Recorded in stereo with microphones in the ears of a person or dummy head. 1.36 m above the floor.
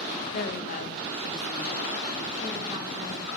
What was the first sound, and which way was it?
A woman speaking, 55° left (ahead or behind).